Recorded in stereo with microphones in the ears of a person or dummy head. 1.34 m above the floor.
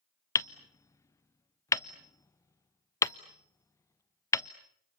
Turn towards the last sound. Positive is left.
turn(degrees=20)  # may be behind; listen again after turning